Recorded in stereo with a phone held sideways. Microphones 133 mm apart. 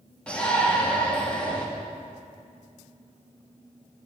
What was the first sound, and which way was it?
A shout, 10° left (ahead or behind).